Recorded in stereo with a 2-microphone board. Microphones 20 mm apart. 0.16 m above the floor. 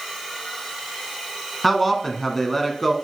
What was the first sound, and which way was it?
A man speaking, 10° left (ahead or behind).